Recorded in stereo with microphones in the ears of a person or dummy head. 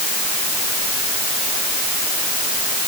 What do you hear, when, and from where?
Only background noise.